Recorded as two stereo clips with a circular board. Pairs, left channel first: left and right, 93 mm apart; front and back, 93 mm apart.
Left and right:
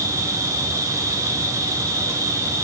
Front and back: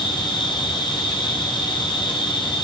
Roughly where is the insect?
Ahead right.